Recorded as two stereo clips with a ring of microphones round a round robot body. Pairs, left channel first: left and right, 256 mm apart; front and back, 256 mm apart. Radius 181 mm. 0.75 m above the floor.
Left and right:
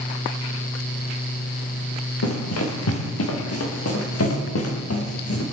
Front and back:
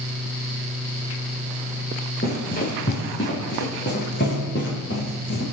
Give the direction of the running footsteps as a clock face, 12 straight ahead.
10 o'clock.